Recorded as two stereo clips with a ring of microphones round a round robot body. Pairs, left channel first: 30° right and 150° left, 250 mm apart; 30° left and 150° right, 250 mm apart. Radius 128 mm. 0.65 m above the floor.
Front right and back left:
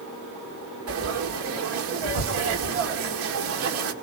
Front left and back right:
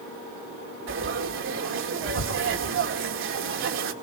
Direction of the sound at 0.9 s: 175° left.